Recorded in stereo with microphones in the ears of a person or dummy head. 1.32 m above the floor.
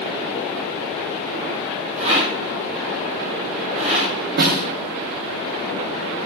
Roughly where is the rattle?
Right.